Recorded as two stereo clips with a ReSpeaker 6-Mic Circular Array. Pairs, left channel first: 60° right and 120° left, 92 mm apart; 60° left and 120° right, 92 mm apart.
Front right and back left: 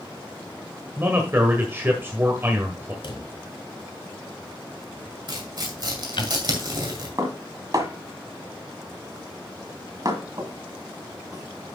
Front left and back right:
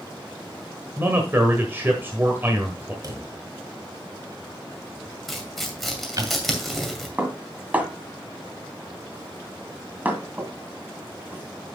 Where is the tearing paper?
150° left, 2 m.